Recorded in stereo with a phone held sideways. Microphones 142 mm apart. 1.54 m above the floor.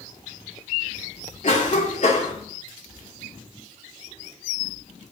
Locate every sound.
1.4 s a cough: 55° left (ahead or behind), 3 m